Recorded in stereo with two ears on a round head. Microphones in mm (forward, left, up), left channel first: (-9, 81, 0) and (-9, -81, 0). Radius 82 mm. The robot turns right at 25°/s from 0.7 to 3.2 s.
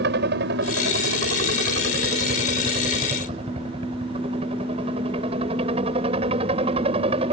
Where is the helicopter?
100° right; by 7.3 s 35° right.